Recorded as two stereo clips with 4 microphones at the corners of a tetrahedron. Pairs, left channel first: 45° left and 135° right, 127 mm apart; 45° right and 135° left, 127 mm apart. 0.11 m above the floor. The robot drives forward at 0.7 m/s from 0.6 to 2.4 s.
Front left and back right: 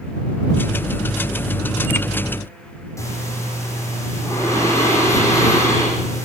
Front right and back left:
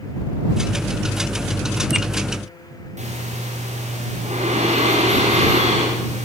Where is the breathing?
110° left, 9 m.